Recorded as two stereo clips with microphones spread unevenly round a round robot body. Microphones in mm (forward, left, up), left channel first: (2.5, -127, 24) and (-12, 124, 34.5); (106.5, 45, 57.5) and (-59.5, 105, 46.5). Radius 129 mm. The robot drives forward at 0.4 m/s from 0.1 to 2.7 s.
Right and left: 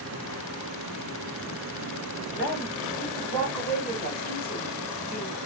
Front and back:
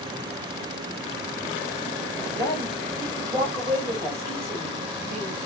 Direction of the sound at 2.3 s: 170° right.